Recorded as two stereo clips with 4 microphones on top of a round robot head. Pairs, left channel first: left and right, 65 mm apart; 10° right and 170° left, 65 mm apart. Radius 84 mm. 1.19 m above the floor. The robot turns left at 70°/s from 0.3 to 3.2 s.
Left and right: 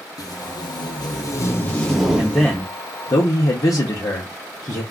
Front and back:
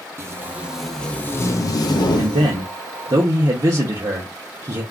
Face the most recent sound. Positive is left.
turn(degrees=125)